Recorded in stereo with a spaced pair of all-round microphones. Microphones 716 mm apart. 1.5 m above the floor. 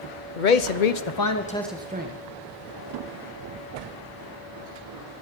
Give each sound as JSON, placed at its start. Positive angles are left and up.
{"t": 0.4, "sound": "a man speaking", "side_deg": 85, "distance_m": 1.0}